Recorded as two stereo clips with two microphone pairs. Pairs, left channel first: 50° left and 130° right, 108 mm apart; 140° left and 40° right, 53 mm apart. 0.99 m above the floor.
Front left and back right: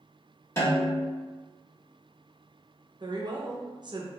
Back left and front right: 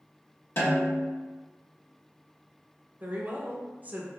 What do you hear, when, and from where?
0.6 s a snare drum: 115° left, 1.6 m
3.0 s a woman speaking: 85° right, 0.6 m